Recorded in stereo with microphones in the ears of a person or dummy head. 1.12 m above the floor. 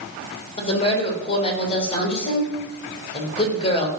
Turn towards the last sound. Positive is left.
turn(degrees=30)  # may be behind; listen again after turning